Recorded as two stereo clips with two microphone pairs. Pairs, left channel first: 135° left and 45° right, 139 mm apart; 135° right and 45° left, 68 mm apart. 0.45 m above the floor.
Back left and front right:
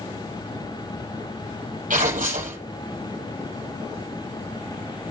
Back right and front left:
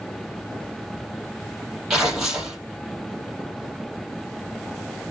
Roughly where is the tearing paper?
Ahead right.